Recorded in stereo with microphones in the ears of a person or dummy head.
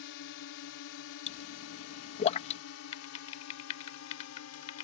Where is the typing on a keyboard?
40° left (ahead or behind).